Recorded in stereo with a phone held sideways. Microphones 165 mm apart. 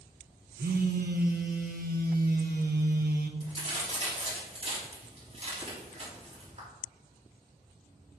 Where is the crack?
35° right (ahead or behind), 3.5 m.